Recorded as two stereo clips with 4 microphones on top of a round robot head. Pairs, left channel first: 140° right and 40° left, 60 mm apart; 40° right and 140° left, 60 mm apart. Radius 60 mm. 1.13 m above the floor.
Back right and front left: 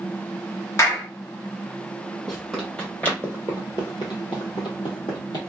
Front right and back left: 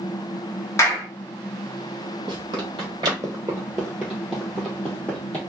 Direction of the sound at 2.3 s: 130° left.